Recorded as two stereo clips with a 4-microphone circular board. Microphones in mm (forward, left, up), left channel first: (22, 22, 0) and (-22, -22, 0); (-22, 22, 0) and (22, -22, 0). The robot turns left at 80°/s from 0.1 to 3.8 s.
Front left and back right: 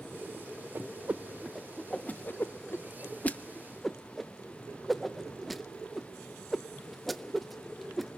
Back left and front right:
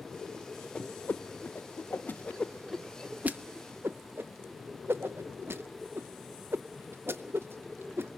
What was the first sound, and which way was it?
A whoosh, 155° right.